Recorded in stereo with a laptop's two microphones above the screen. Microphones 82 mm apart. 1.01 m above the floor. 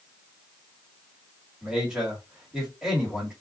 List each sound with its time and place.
1.6 s a man speaking: 5° right (ahead or behind), 2 m